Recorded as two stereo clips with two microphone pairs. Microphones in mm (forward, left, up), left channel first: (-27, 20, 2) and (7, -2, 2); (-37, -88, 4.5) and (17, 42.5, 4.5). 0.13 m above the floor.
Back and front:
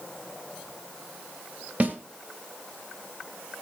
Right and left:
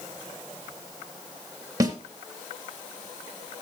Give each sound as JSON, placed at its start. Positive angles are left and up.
{"t": 1.8, "sound": "a snare drum", "azimuth_deg": 5, "distance_m": 2.0}